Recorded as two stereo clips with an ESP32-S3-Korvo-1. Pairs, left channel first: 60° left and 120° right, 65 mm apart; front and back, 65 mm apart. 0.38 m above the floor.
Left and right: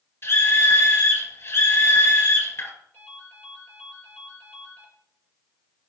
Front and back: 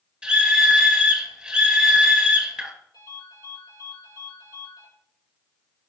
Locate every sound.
0.2 s a scream: 100° left, 2.5 m
2.9 s a ringtone: straight ahead, 4.5 m